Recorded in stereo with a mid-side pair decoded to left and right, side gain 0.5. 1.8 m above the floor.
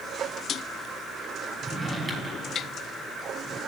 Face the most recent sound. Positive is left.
turn(degrees=-25)